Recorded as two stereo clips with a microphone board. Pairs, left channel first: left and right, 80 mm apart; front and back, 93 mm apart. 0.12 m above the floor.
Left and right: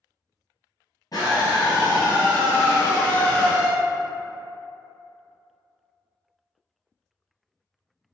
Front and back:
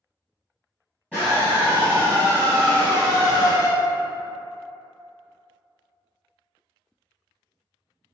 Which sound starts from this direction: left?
A scream, at 1.1 s.